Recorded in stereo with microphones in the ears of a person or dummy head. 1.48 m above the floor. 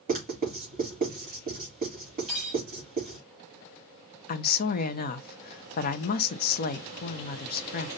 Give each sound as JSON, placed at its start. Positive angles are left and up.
{"t": 0.1, "sound": "writing", "side_deg": -40, "distance_m": 3.5}
{"t": 2.3, "sound": "cutlery clinking", "side_deg": 0, "distance_m": 2.5}
{"t": 4.3, "sound": "a woman speaking", "side_deg": 50, "distance_m": 0.7}